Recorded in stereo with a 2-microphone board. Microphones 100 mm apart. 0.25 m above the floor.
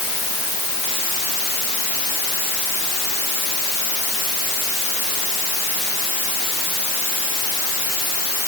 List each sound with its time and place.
Only background noise.